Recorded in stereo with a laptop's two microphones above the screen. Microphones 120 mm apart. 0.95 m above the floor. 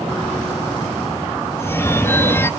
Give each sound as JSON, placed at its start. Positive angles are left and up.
{"t": 1.6, "sound": "a phone ringing", "side_deg": 20, "distance_m": 0.5}